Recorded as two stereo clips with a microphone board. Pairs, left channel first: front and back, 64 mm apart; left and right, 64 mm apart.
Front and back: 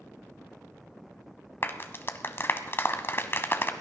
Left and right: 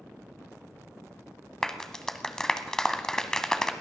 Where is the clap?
15° left, 1.0 m.